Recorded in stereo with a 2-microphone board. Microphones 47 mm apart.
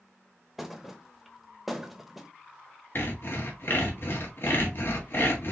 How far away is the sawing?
About 1.3 m.